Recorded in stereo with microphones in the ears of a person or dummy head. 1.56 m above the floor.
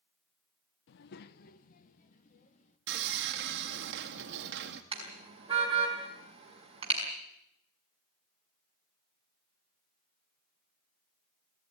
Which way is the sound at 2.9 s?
60° right (ahead or behind).